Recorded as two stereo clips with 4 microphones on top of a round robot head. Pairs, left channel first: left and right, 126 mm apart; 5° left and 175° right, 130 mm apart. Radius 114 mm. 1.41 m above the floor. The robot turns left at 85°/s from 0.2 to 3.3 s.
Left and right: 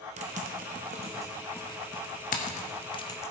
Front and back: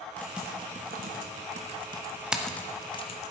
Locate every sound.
0.2 s typing on a keyboard: 75° right, 0.8 m; by 3.3 s 20° left, 0.8 m